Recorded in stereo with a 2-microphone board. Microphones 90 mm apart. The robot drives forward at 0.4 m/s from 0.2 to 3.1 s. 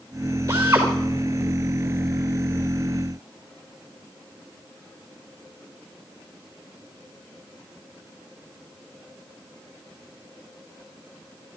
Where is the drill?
25° right (ahead or behind), 4.5 m.